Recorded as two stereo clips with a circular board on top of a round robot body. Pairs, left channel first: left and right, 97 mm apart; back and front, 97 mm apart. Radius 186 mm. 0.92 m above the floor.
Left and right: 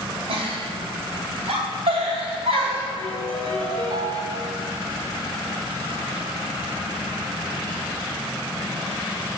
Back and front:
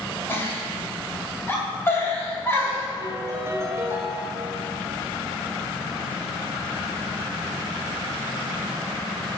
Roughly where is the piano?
Ahead right.